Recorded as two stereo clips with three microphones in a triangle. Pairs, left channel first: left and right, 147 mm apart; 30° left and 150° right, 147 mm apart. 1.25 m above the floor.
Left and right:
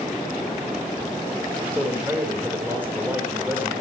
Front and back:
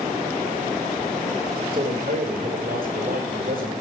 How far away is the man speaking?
About 6 m.